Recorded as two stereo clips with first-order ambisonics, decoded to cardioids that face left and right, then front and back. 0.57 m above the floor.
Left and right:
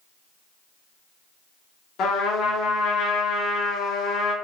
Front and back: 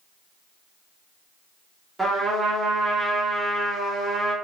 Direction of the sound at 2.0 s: 105° left.